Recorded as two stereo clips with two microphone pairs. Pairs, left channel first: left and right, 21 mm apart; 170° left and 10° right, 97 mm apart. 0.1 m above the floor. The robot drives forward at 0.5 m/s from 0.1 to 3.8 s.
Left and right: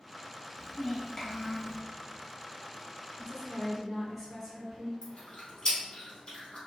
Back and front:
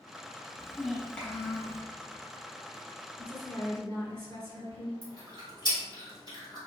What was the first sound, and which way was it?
A child speaking, 55° left.